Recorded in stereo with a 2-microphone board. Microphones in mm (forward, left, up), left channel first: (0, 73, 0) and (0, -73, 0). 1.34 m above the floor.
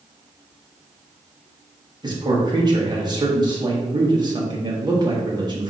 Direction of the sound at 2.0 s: 30° right (ahead or behind).